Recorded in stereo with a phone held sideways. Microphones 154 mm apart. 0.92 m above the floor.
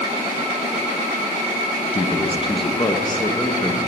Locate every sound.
1.9 s a man speaking: 40° left (ahead or behind), 1.1 m; by 3.8 s 15° left (ahead or behind), 1.6 m